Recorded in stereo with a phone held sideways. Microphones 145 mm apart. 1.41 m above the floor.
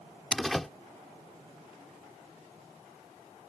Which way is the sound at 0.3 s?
Centre (ahead or behind).